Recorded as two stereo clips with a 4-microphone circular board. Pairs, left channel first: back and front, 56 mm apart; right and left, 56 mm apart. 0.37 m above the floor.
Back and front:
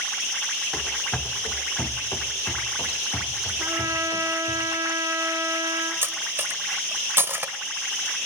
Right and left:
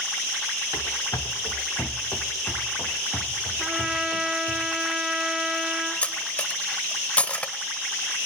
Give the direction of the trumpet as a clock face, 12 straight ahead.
12 o'clock.